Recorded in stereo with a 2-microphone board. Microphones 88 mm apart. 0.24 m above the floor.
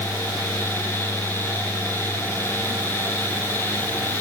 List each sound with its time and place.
Only background noise.